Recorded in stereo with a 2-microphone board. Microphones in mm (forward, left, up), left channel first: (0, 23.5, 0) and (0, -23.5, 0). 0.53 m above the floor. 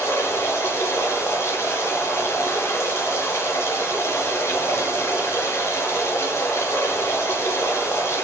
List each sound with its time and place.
0.0 s running water: 70° left (ahead or behind), 4.5 m